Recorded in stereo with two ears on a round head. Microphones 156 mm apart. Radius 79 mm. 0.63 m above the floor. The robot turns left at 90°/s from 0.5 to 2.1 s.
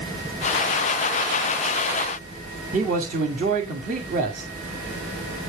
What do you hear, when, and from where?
2.7 s a man speaking: 45° right (ahead or behind), 1.9 m